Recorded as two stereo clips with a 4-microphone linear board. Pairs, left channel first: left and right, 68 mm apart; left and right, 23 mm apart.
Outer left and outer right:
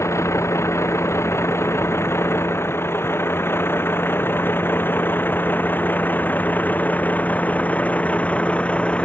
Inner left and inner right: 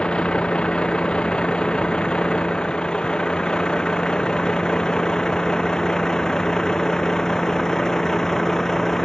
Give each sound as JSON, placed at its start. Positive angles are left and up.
{"t": 0.0, "sound": "a vehicle", "side_deg": 50}